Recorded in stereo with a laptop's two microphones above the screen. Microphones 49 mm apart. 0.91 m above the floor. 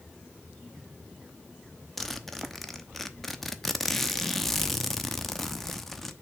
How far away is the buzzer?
I don't hear a buzzer.